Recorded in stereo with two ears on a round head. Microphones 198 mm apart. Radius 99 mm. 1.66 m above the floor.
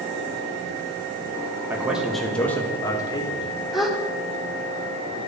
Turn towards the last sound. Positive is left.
turn(degrees=0)  # may be behind; listen again after turning